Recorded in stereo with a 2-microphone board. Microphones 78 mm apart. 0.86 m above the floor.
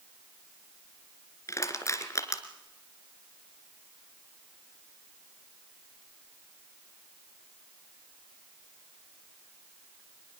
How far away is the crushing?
About 2.5 m.